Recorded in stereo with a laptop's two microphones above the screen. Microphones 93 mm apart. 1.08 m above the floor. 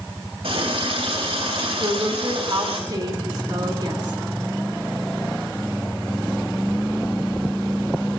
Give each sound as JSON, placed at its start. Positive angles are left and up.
{"t": 0.4, "sound": "a running tap", "side_deg": -85, "distance_m": 4.0}
{"t": 1.8, "sound": "a woman speaking", "side_deg": -50, "distance_m": 3.0}